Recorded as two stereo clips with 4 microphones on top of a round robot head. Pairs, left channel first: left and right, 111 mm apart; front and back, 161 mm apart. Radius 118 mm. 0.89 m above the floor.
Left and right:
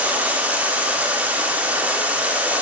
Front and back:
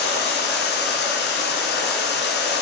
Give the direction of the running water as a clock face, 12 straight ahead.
12 o'clock.